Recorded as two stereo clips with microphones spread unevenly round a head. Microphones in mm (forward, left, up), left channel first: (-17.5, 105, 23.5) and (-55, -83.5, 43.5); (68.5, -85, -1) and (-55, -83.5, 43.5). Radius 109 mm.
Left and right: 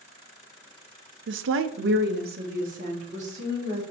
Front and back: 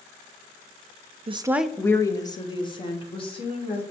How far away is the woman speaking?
About 0.5 m.